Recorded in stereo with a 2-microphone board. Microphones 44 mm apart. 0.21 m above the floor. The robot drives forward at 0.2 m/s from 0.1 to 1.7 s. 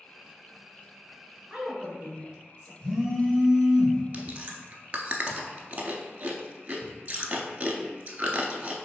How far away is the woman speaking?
About 1.1 m.